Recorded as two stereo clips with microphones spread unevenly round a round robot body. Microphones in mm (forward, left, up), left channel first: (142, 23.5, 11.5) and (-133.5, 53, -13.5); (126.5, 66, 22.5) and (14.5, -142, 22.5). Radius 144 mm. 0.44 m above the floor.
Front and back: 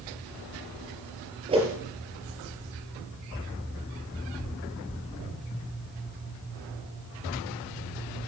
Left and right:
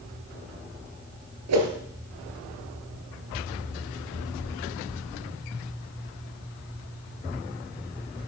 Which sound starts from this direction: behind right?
A whoosh, at 1.5 s.